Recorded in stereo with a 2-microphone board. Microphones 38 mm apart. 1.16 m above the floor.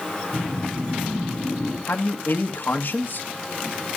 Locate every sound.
0.3 s a whoosh: 35° right (ahead or behind), 8.5 m
1.9 s a man speaking: 60° left (ahead or behind), 1.2 m